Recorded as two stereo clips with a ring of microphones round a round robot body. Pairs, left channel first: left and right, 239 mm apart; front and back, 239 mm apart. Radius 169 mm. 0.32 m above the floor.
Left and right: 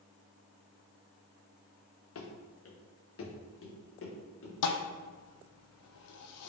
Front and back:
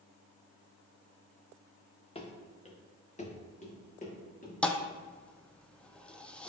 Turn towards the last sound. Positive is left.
turn(degrees=85)